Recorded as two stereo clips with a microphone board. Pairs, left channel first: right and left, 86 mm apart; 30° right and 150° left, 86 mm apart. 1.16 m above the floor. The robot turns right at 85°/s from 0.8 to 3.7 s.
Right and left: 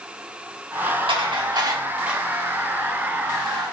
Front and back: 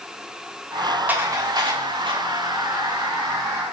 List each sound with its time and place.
1.1 s dishes clattering: 80° left, 1.6 m; by 2.2 s 175° left, 1.6 m